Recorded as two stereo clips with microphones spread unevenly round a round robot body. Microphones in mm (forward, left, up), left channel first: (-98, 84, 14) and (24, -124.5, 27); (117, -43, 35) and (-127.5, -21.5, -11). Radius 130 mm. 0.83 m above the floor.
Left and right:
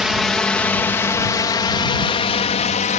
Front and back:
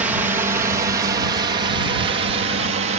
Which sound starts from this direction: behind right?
A drone, at 0.0 s.